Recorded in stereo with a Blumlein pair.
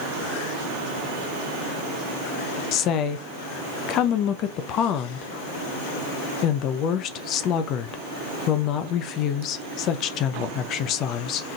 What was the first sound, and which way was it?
A woman speaking, 35° left.